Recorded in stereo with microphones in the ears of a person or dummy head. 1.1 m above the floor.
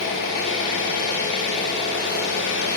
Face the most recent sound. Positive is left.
turn(degrees=65)  # may be behind; listen again after turning